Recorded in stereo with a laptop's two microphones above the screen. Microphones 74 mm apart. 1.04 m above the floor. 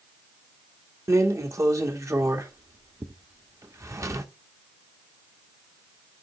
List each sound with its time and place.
1.1 s a drawer: 40° right (ahead or behind), 1.0 m